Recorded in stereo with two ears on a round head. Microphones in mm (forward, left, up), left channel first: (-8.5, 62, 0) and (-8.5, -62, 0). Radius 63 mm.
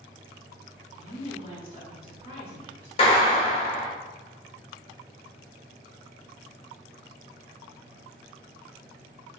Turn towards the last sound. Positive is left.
turn(degrees=40)  # may be behind; listen again after turning